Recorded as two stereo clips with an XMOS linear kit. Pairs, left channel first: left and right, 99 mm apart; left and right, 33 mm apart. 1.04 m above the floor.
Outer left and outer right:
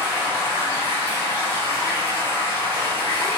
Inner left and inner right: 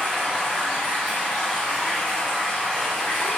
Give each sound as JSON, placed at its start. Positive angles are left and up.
{"t": 0.0, "sound": "running water", "side_deg": 30, "distance_m": 1.7}